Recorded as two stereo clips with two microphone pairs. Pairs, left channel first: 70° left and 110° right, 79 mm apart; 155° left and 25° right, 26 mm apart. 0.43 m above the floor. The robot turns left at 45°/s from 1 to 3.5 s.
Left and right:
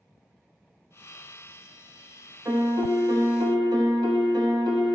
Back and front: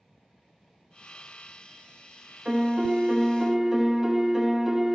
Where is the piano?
70° right, 0.9 m; by 5.0 s 120° right, 0.9 m.